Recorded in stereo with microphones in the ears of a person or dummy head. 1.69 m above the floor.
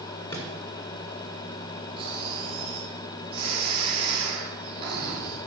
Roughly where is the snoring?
Right.